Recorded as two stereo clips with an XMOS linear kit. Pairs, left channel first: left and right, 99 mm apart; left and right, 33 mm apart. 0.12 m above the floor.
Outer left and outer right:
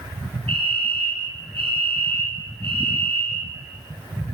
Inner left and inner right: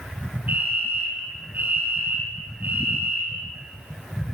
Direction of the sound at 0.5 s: 70° right (ahead or behind).